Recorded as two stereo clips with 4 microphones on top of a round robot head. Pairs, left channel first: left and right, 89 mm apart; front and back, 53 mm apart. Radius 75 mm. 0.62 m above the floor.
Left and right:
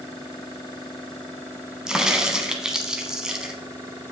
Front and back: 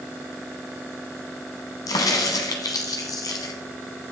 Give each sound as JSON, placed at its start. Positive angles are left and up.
{"t": 1.9, "sound": "a crack", "azimuth_deg": -10, "distance_m": 0.8}